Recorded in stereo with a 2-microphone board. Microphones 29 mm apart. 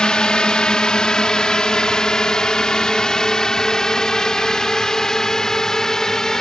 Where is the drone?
30° left (ahead or behind); by 6.4 s 20° left (ahead or behind).